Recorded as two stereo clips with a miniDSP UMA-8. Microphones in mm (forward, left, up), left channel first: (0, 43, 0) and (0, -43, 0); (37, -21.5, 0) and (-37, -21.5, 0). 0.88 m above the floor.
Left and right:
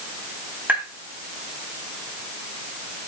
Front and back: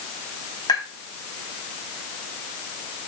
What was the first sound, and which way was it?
Tapping, 20° right.